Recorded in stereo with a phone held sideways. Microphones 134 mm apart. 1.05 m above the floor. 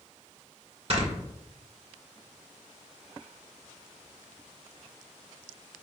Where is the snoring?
45° right (ahead or behind), 1.8 m.